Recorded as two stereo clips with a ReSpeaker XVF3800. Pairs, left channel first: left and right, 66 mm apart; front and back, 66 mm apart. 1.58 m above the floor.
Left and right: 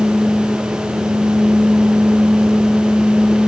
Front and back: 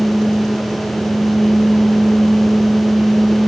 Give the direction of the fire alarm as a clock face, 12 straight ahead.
I don't hear a fire alarm.